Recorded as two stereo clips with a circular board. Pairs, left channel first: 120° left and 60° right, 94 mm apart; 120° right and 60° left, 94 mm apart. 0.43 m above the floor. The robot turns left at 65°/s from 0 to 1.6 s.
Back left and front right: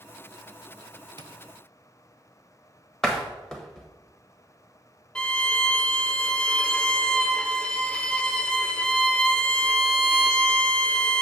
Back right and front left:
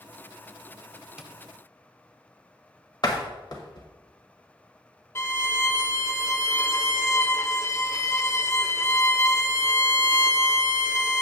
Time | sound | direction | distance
1.2 | tapping | 20° right | 0.6 m
3.0 | a door slam | 160° right | 1.3 m
5.2 | a violin | 165° right | 0.6 m